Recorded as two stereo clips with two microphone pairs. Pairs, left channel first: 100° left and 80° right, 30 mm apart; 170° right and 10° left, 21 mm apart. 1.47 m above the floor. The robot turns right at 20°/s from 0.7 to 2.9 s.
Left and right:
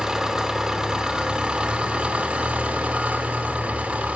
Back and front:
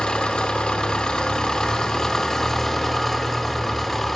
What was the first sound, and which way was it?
An engine running, 145° right.